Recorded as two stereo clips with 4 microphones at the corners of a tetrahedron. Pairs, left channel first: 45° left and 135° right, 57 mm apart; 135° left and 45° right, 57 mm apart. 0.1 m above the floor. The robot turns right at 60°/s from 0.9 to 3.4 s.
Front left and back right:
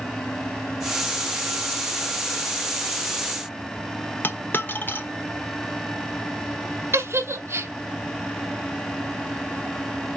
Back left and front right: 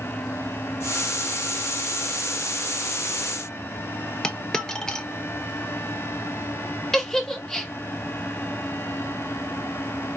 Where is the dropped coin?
65° left, 0.8 m.